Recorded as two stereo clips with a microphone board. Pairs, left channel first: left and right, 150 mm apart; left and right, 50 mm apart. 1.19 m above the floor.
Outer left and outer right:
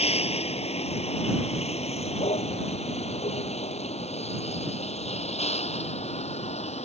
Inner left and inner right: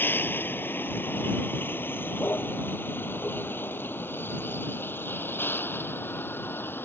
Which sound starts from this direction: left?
A vehicle, at 0.0 s.